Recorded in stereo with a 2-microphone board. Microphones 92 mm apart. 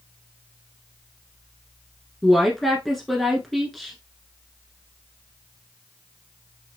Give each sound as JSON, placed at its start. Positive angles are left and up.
{"t": 2.2, "sound": "a woman speaking", "side_deg": 5, "distance_m": 1.1}